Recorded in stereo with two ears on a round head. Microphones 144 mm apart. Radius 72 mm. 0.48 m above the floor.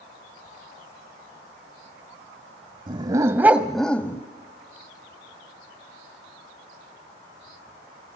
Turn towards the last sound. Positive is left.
turn(degrees=15)  # may be behind; listen again after turning